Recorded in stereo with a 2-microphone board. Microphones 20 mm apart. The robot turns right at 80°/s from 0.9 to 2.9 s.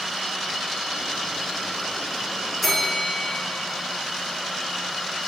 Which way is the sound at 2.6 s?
Centre (ahead or behind).